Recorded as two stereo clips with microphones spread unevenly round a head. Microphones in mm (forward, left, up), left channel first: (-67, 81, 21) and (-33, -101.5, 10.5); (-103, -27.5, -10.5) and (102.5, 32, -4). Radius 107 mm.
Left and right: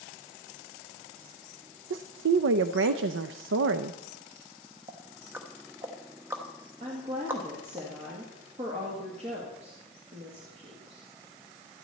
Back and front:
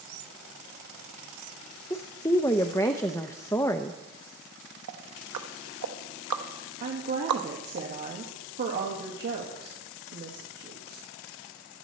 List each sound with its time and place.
1.9 s a woman speaking: 90° right, 0.6 m
4.9 s ticking: straight ahead, 1.1 m
6.8 s a woman speaking: 20° right, 1.9 m